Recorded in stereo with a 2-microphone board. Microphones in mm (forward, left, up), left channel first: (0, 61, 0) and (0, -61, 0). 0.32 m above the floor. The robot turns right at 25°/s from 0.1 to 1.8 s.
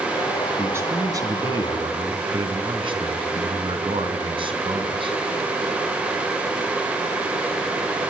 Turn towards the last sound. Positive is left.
turn(degrees=-130)